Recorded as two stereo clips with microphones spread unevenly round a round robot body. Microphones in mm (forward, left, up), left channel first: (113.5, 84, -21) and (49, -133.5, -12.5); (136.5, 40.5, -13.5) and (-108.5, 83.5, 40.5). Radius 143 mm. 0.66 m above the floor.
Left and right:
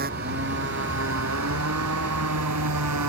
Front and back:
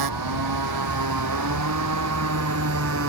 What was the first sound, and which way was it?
A motorcycle, 170° right.